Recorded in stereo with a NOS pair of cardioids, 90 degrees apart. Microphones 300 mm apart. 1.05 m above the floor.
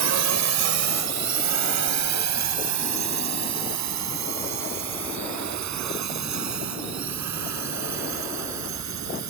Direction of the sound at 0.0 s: 60° right.